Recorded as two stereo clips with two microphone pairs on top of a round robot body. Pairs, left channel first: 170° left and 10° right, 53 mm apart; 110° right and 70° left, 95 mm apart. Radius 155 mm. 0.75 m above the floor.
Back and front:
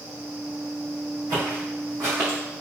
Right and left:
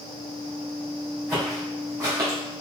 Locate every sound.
1.3 s footsteps: 5° right, 1.7 m; by 2.4 s 25° left, 1.5 m